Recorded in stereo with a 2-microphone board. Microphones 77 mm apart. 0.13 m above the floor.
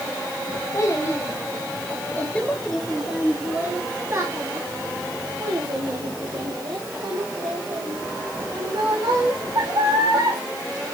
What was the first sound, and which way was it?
A child speaking, 45° left (ahead or behind).